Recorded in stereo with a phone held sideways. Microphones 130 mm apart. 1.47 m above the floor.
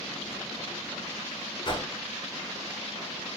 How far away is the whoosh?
About 0.7 m.